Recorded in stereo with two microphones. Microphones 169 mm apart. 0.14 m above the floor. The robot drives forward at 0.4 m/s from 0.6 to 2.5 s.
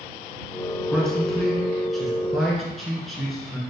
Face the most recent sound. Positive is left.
turn(degrees=0)  # may be behind; listen again after turning